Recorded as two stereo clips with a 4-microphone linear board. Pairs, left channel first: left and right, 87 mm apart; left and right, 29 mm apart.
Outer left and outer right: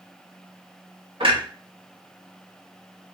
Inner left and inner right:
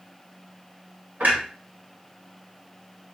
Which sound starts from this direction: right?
A clunk, at 1.2 s.